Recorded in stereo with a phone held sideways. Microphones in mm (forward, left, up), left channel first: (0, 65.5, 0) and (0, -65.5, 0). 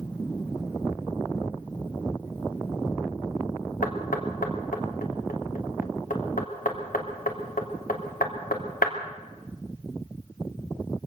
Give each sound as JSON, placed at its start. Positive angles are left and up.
{"t": 3.8, "sound": "knocking", "side_deg": 80, "distance_m": 3.0}